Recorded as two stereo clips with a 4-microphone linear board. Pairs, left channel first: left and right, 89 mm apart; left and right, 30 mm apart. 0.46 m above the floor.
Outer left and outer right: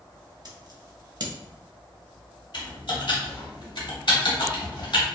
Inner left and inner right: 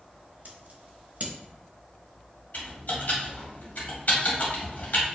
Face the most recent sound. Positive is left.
turn(degrees=65)  # may be behind; listen again after turning